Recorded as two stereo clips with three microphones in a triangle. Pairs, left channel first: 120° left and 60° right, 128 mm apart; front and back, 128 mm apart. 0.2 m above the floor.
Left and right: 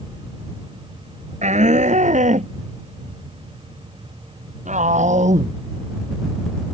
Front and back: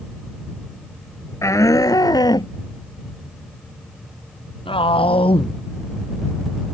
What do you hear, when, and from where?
1.4 s a shout: 65° right; by 6.8 s 40° right